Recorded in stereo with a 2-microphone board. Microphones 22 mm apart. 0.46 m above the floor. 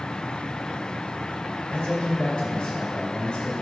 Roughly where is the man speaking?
Left.